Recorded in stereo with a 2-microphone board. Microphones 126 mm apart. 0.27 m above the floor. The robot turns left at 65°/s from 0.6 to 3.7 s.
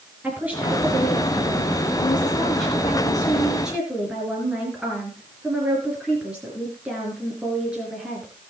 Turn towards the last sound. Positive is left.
turn(degrees=-10)